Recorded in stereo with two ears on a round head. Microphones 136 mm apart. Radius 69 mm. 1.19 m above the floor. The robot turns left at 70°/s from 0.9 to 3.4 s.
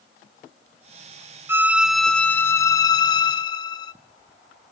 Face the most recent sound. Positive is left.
turn(degrees=25)  # may be behind; listen again after turning